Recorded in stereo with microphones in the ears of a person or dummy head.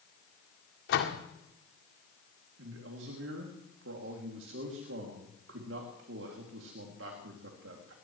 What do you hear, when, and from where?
0.9 s a door slam: 70° left (ahead or behind), 2.0 m
2.6 s a man speaking: 60° right (ahead or behind), 2.5 m